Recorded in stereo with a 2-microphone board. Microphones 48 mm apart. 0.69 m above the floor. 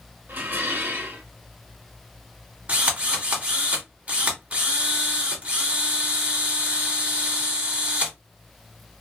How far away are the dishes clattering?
About 1.0 m.